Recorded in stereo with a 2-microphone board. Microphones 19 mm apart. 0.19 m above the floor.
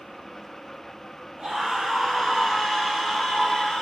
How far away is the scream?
About 4.5 m.